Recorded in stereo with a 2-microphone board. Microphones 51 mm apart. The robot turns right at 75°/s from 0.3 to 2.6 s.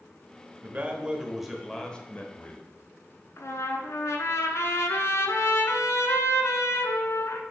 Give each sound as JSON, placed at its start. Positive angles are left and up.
{"t": 0.6, "sound": "a man speaking", "azimuth_deg": -70, "distance_m": 1.0}
{"t": 3.4, "sound": "a trumpet", "side_deg": 80, "distance_m": 0.8}